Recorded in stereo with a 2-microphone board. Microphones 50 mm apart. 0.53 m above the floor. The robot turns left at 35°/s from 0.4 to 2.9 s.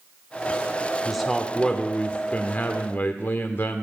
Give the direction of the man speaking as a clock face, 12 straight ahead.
6 o'clock.